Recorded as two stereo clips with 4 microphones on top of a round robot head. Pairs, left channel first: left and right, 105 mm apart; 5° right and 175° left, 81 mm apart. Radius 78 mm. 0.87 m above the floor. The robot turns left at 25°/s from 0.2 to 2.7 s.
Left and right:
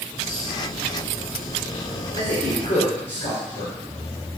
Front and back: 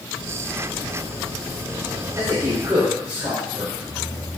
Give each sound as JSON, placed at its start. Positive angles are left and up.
{"t": 2.2, "sound": "a man speaking", "azimuth_deg": 135, "distance_m": 2.5}